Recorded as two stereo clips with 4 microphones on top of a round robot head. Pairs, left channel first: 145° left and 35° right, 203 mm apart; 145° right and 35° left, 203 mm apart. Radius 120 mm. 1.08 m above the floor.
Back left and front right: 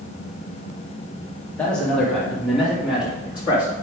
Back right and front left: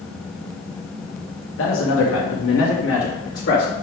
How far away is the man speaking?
About 1.3 m.